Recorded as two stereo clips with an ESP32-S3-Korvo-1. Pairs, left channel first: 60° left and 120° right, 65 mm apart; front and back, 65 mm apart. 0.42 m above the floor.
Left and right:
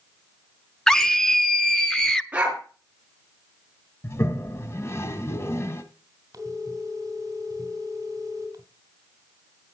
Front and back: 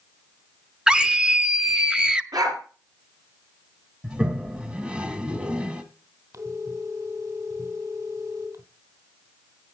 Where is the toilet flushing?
105° left, 1.3 m.